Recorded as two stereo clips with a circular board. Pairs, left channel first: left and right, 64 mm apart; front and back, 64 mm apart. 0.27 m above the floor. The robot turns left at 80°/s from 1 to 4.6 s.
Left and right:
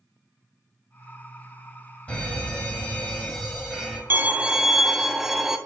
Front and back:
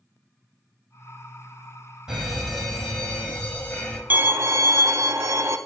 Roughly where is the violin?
Behind right.